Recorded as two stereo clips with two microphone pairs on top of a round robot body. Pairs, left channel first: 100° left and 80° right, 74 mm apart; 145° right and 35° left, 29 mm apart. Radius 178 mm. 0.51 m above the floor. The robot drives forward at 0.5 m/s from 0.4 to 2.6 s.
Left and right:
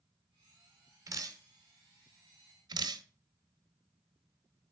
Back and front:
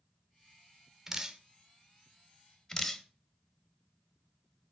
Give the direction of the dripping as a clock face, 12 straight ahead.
1 o'clock.